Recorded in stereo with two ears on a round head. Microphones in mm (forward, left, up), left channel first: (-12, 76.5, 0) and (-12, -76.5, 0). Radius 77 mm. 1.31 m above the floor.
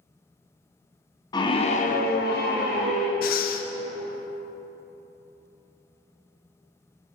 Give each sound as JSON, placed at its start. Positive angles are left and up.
{"t": 1.3, "sound": "a scream", "side_deg": 25, "distance_m": 1.0}
{"t": 3.2, "sound": "breathing", "side_deg": 55, "distance_m": 0.5}